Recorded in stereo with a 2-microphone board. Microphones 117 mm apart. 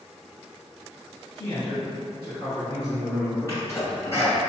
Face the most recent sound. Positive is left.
turn(degrees=25)  # may be behind; listen again after turning